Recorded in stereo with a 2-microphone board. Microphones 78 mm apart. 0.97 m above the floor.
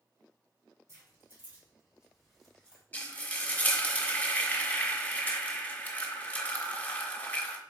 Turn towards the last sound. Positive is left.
turn(degrees=20)  # may be behind; listen again after turning